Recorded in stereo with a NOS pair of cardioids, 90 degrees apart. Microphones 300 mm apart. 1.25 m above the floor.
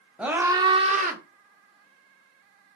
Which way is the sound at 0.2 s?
5° right.